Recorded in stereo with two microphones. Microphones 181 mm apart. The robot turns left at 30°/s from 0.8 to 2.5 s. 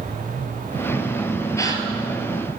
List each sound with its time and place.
1.6 s a gasp: 15° left (ahead or behind), 1.1 m; by 1.9 s 25° left (ahead or behind), 1.1 m